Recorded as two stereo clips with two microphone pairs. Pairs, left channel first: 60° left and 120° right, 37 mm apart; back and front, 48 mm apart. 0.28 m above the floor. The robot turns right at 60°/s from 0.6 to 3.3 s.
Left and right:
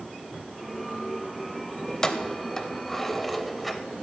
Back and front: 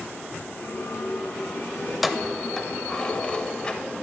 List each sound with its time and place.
1.9 s keys jangling: 60° left, 0.6 m; by 3.8 s 145° left, 0.6 m